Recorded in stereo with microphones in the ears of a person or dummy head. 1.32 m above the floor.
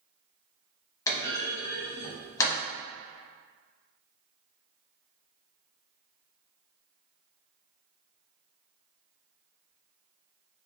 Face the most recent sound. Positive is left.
turn(degrees=20)  # may be behind; listen again after turning